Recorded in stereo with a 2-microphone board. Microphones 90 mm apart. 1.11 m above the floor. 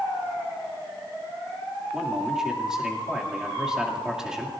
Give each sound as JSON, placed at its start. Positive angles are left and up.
{"t": 1.9, "sound": "a man speaking", "side_deg": -5, "distance_m": 2.5}